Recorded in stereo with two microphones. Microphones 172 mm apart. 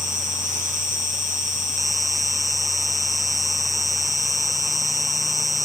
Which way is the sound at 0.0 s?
50° right (ahead or behind).